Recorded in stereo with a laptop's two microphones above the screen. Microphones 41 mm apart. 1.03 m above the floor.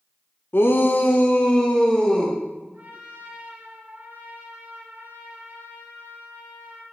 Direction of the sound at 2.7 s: 55° right (ahead or behind).